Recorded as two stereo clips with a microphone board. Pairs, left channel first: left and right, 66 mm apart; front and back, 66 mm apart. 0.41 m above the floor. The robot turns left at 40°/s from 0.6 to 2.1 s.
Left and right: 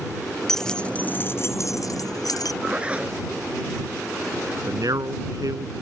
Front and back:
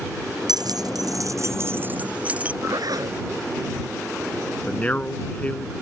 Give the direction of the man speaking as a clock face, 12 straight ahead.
2 o'clock.